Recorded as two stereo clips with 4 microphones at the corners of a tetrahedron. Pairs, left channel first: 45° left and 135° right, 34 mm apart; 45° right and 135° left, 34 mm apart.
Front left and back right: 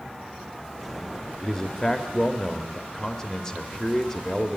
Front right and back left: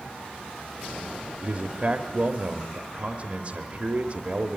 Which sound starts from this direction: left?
A man speaking, at 1.4 s.